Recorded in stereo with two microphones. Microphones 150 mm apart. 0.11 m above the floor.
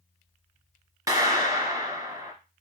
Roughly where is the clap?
Right.